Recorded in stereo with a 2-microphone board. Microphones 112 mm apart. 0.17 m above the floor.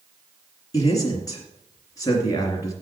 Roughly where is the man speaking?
Left.